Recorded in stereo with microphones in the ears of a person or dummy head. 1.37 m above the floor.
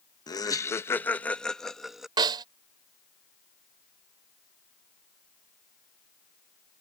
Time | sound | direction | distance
0.3 | laughter | 20° left (ahead or behind) | ?
2.2 | a snare drum | 25° right (ahead or behind) | ?